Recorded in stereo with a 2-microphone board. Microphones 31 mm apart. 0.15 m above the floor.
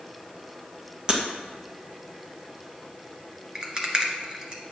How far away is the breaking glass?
About 2.5 m.